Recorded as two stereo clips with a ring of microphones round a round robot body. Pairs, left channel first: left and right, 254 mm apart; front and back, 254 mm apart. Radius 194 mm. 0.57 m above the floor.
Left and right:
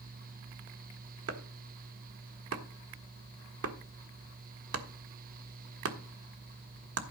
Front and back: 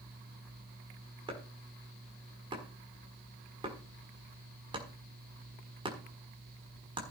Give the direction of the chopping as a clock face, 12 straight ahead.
4 o'clock.